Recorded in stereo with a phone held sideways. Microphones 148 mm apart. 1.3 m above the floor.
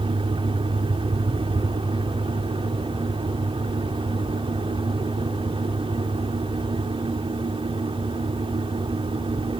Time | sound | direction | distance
0.0 | a fan | 40° right (ahead or behind) | ?